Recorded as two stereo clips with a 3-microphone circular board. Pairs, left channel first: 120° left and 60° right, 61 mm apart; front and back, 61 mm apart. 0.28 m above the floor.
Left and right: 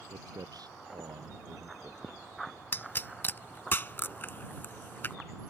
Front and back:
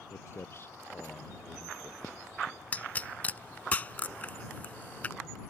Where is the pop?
65° left.